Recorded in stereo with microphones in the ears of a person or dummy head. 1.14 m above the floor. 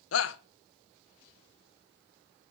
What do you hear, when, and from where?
0.1 s a shout: 70° left (ahead or behind), 0.7 m